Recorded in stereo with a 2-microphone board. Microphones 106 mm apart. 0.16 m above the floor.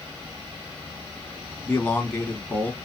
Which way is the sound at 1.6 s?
15° left (ahead or behind).